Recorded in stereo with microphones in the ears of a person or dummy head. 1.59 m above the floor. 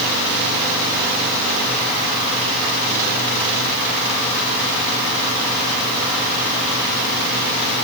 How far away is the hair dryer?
I don't hear a hair dryer.